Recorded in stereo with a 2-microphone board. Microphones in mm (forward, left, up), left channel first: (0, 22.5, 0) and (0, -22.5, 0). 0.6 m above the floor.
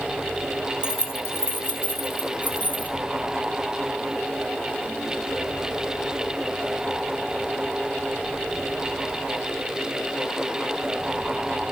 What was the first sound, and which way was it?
Keys jangling, 75° left (ahead or behind).